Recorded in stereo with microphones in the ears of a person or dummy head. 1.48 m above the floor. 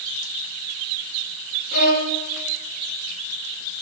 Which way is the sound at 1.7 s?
55° left (ahead or behind).